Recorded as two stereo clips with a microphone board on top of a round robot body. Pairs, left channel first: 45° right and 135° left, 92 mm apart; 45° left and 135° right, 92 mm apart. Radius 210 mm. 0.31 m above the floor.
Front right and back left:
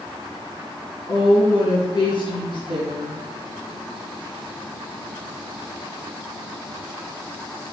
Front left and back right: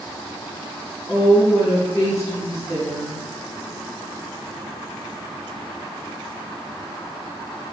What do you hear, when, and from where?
1.1 s a woman speaking: 10° right, 4 m